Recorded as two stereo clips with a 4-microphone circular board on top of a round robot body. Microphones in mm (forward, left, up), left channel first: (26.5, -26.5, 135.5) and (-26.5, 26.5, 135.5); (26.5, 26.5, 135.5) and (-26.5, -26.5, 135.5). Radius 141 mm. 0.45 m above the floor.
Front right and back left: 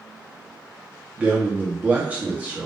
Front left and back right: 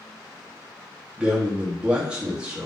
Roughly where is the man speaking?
Behind.